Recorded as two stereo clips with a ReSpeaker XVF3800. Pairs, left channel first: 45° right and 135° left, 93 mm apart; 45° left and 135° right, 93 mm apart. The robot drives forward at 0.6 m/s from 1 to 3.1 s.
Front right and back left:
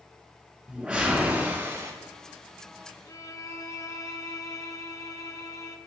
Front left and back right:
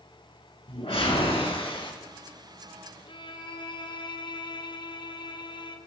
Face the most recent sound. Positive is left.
turn(degrees=10)